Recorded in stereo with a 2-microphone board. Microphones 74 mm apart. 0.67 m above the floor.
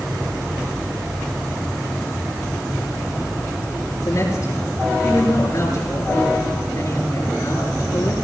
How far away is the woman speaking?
About 9.5 m.